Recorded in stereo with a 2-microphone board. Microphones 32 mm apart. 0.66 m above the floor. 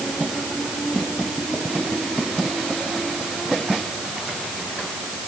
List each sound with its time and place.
Only background noise.